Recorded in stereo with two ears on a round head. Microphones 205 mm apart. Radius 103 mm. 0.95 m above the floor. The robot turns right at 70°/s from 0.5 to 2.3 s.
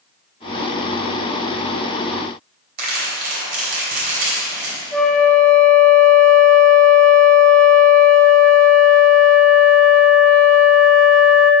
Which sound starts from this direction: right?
Crumpling, at 2.8 s.